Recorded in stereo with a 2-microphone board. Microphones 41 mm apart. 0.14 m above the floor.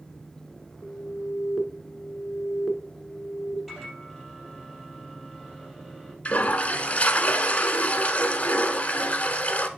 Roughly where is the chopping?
I don't hear chopping.